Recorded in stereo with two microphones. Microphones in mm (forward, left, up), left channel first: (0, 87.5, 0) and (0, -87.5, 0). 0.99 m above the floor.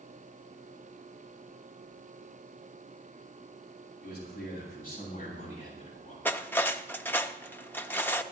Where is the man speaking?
60° left (ahead or behind), 7.5 m; by 6.2 s 40° left (ahead or behind), 7.5 m.